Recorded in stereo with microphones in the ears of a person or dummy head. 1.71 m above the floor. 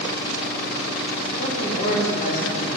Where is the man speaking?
45° left (ahead or behind), 2.5 m; by 2.7 s 55° left (ahead or behind), 3 m.